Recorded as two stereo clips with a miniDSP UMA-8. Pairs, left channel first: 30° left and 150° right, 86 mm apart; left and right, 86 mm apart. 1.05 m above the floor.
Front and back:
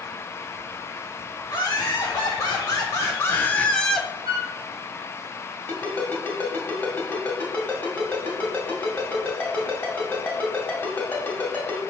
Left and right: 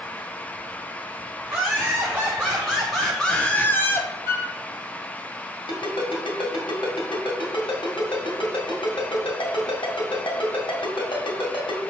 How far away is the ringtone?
About 2 m.